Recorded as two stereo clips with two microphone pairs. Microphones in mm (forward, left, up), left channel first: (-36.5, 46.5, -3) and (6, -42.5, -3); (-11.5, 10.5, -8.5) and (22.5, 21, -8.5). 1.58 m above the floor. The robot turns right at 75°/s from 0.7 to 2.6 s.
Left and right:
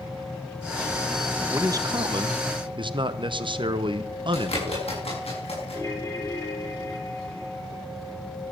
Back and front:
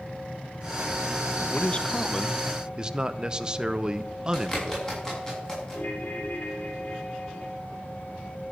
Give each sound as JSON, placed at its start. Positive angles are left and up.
{"t": 1.5, "sound": "a man speaking", "azimuth_deg": -130, "distance_m": 0.8}
{"t": 4.3, "sound": "a bird", "azimuth_deg": 125, "distance_m": 7.0}
{"t": 5.7, "sound": "a ringtone", "azimuth_deg": 170, "distance_m": 4.5}